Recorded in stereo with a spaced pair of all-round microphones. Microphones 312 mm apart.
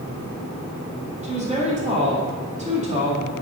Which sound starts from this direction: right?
A woman speaking, at 1.2 s.